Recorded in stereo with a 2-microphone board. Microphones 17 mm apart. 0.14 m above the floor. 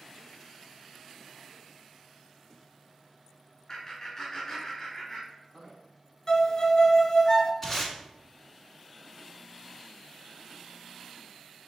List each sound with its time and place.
3.7 s laughter: 35° left (ahead or behind), 1.7 m; by 5.7 s 15° left (ahead or behind), 2.5 m
6.3 s a violin: 35° left (ahead or behind), 0.5 m
7.6 s tape being pulled: 10° left (ahead or behind), 1.4 m